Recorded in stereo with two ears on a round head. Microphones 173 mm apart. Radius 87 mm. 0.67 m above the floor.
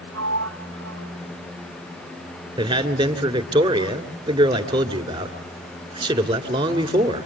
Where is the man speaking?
30° right (ahead or behind), 2.5 m.